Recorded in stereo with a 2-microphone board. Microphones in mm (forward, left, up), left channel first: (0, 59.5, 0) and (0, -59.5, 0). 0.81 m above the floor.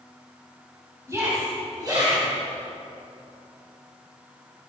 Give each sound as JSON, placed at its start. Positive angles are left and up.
{"t": 1.1, "sound": "a shout", "side_deg": -25, "distance_m": 4.5}